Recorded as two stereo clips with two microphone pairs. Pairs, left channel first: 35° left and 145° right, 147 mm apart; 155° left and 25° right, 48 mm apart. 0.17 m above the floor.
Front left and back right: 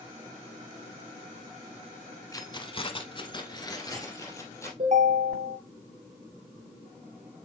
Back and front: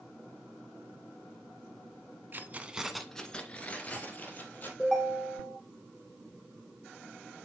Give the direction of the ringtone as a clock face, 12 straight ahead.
4 o'clock.